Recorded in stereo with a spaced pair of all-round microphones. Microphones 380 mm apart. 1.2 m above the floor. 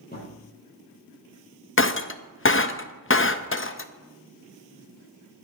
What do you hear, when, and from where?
0.1 s a thud: 25° left (ahead or behind), 6.5 m
1.8 s breaking glass: 30° left (ahead or behind), 0.6 m